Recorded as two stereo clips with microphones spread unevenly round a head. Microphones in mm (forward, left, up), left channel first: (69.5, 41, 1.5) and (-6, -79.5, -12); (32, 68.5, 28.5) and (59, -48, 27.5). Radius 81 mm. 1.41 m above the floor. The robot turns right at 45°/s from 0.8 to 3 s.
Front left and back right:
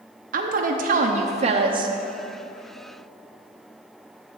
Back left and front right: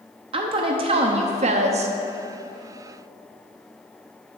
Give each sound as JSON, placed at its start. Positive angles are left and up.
{"t": 0.3, "sound": "a woman speaking", "azimuth_deg": -115, "distance_m": 0.6}